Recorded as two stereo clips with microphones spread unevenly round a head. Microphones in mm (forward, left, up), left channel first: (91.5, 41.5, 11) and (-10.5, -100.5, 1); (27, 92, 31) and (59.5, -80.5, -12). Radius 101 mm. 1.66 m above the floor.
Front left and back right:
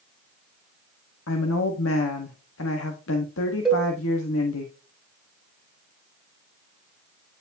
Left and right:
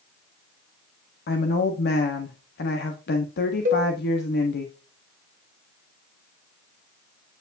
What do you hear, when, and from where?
1.3 s a woman speaking: 75° left, 1.2 m
3.6 s a cowbell: 40° right, 2.5 m